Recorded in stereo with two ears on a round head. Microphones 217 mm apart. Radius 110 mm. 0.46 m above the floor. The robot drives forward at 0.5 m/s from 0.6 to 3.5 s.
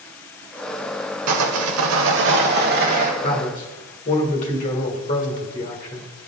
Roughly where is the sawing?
Right.